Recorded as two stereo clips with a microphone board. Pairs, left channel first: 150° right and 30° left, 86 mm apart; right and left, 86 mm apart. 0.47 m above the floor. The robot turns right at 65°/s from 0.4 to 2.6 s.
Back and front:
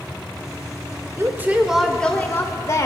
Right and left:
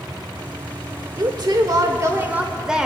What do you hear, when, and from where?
1.2 s a woman speaking: 75° left, 1.1 m; by 2.9 s 170° left, 1.1 m